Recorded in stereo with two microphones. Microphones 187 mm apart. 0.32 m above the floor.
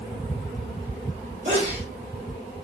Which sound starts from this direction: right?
A sneeze, at 1.4 s.